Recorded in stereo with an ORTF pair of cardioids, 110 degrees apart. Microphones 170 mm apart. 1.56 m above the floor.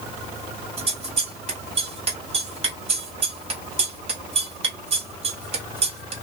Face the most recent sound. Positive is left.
turn(degrees=-35)